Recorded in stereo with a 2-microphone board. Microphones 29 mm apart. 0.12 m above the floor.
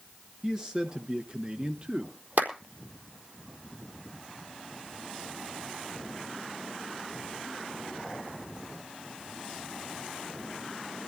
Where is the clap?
70° right (ahead or behind), 4 m.